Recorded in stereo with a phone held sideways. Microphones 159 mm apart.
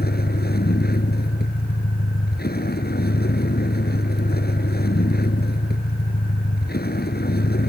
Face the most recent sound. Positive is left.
turn(degrees=80)